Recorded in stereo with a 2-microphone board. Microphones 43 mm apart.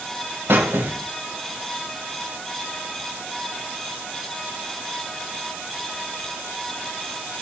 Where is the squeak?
60° right (ahead or behind), 2.5 m.